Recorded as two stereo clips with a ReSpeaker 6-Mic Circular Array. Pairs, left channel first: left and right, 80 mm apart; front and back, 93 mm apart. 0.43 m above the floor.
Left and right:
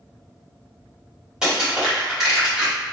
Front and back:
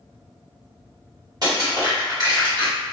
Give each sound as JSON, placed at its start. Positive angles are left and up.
{"t": 1.4, "sound": "crushing", "azimuth_deg": -165, "distance_m": 1.8}